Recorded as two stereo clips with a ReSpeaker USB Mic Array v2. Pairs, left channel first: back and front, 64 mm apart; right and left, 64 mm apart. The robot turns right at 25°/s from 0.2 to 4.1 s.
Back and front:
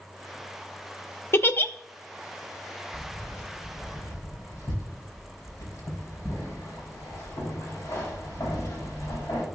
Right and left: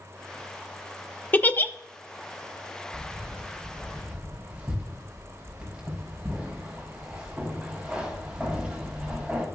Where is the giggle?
145° right, 0.5 m; by 1.7 s 135° right, 0.5 m.